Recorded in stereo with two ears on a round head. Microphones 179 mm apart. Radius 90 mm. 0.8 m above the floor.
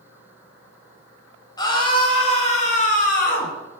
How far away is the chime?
No chime in this recording.